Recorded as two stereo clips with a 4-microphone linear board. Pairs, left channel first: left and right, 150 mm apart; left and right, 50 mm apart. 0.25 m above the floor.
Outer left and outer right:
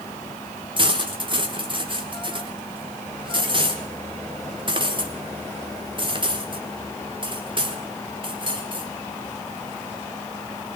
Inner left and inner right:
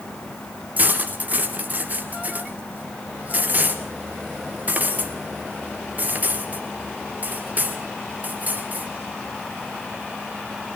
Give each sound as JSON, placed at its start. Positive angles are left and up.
{"t": 0.8, "sound": "cutlery clinking", "side_deg": -35, "distance_m": 2.5}